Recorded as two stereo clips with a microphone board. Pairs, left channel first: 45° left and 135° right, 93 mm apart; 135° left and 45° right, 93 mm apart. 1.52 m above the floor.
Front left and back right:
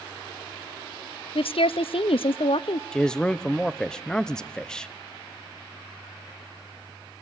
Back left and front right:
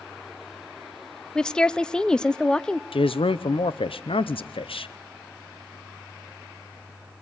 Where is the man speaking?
125° left, 0.8 m.